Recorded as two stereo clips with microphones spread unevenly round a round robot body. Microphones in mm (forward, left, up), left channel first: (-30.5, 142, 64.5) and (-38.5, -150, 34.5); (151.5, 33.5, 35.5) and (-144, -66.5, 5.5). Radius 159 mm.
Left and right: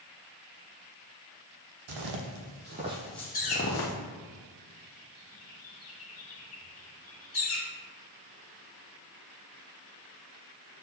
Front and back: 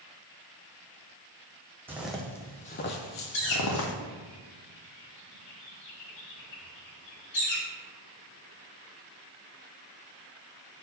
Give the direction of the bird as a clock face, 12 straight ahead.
11 o'clock.